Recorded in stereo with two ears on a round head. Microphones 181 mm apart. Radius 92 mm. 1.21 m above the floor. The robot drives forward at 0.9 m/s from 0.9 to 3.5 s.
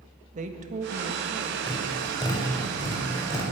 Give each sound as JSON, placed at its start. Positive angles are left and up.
{"t": 0.3, "sound": "a woman speaking", "side_deg": -40, "distance_m": 1.5}
{"t": 1.7, "sound": "tapping", "side_deg": 20, "distance_m": 4.0}